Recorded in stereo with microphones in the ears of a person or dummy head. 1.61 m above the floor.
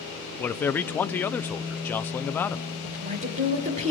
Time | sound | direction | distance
0.4 | a man speaking | 10° left (ahead or behind) | 0.5 m
2.8 | a woman speaking | 40° right (ahead or behind) | 5 m